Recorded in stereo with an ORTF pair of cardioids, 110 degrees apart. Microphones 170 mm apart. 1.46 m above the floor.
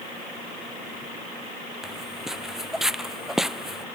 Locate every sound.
1.8 s footsteps: straight ahead